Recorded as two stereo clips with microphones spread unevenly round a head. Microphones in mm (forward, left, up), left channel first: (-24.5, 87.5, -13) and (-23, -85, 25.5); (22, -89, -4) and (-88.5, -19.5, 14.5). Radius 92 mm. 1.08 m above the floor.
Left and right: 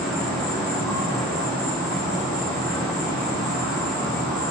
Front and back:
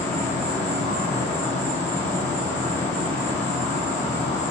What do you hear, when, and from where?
0.0 s an insect: 20° left, 1.0 m